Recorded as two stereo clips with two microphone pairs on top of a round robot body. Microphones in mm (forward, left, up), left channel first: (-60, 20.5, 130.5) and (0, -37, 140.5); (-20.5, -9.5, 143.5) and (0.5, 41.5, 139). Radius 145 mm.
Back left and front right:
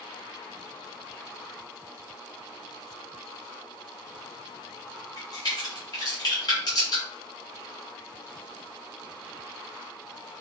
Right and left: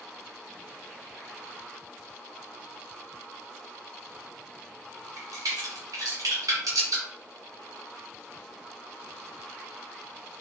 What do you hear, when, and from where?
5.2 s a crack: 85° left, 1.0 m